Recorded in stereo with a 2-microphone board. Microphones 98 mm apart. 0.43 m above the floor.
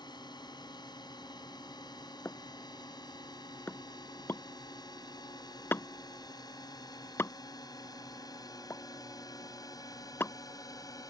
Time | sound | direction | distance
0.0 | a drone | 45° left (ahead or behind) | ?
2.2 | a pop | 25° left (ahead or behind) | ?